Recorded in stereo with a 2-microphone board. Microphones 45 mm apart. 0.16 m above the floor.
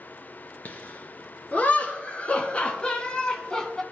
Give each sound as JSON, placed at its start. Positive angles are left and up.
{"t": 0.7, "sound": "laughter", "side_deg": 40, "distance_m": 2.5}